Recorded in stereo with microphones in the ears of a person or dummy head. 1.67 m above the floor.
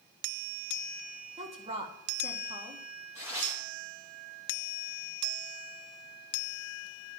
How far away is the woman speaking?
About 1.9 m.